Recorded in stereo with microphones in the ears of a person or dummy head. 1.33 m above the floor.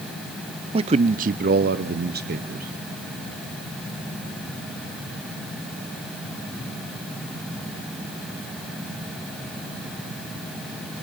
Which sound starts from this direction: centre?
A man speaking, at 0.7 s.